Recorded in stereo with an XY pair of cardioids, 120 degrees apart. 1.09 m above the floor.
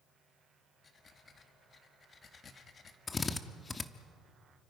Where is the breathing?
35° left, 1.7 m.